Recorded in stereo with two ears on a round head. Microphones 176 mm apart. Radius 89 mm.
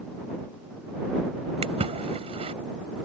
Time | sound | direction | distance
1.6 | a splash | 35° right (ahead or behind) | ?